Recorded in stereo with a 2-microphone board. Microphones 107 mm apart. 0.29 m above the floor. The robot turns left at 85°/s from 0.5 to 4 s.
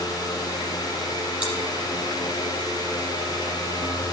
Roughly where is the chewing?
Centre.